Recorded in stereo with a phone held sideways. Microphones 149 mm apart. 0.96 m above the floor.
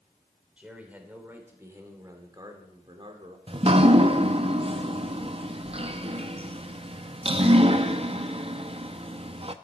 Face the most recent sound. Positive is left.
turn(degrees=-35)  # may be behind; listen again after turning